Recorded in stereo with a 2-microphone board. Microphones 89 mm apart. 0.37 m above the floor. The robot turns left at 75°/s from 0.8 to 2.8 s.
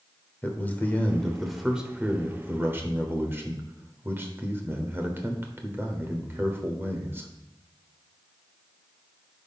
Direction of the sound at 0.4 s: 20° left (ahead or behind).